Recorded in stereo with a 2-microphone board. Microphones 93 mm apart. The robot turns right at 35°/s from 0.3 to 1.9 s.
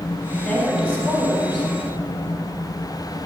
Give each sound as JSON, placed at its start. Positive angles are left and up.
{"t": 0.4, "sound": "a woman speaking", "azimuth_deg": 180, "distance_m": 3.5}